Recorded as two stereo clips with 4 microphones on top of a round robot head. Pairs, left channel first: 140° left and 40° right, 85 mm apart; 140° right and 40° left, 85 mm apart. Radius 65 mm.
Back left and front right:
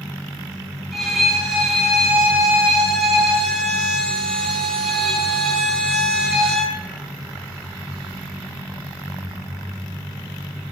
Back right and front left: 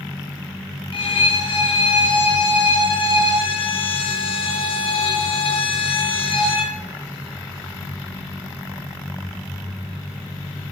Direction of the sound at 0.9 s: 130° right.